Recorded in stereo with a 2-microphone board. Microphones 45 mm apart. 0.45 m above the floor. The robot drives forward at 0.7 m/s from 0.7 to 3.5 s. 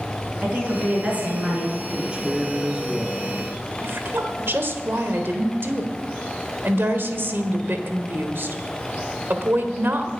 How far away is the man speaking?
About 1.4 m.